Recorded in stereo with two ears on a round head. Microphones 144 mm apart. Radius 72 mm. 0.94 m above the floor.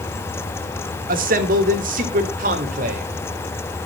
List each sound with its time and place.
1.1 s a man speaking: 60° right (ahead or behind), 1.9 m; by 3.1 s 55° right (ahead or behind), 3 m